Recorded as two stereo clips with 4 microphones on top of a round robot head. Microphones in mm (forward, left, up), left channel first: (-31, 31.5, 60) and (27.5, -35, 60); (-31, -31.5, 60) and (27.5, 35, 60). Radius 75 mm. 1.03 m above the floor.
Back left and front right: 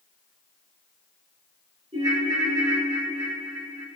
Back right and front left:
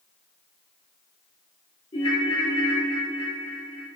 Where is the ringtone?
95° right, 1.9 m.